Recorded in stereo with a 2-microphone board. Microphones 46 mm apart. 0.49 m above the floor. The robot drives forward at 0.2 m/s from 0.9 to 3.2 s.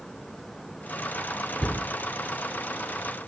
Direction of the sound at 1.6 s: 15° left (ahead or behind).